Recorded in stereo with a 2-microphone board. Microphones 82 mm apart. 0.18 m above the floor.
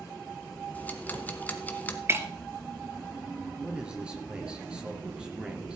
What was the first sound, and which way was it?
Ticking, 20° left (ahead or behind).